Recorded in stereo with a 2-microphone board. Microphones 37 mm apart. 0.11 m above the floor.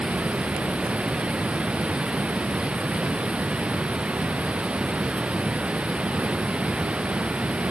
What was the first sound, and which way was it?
Running water, 30° right (ahead or behind).